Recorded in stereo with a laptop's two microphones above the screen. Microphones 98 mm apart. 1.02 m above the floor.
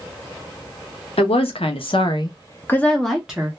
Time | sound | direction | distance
1.2 | a woman speaking | 80° left | 0.8 m